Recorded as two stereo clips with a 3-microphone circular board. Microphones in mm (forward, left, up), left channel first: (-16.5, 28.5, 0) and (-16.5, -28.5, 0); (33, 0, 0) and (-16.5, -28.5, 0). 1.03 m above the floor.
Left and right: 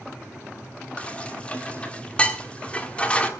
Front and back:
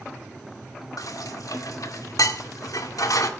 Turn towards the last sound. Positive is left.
turn(degrees=20)